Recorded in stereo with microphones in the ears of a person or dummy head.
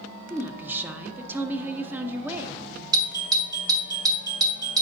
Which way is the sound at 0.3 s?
10° right (ahead or behind).